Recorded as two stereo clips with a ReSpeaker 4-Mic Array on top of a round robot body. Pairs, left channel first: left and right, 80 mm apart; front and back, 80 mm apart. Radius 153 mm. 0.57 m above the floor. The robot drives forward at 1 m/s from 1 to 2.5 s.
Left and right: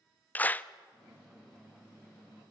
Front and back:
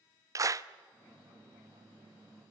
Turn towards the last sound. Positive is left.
turn(degrees=175)